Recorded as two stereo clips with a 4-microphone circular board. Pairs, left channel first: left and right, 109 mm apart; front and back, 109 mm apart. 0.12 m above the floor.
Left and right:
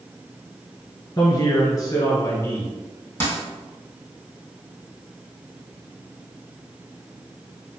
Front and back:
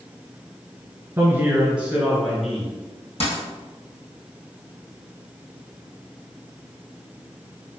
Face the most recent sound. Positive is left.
turn(degrees=20)